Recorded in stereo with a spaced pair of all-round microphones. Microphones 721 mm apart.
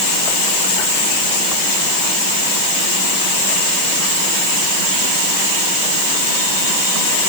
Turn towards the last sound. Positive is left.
No sound to turn to.